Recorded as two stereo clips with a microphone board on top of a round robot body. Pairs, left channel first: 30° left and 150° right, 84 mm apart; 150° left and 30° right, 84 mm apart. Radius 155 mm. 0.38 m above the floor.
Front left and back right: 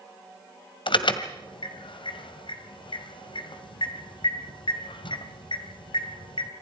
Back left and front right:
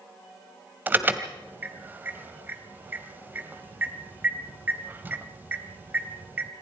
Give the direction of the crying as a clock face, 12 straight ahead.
I don't hear crying.